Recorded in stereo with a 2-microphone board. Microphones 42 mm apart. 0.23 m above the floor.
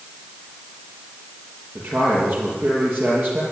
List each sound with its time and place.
1.8 s a man speaking: 50° right (ahead or behind), 7.5 m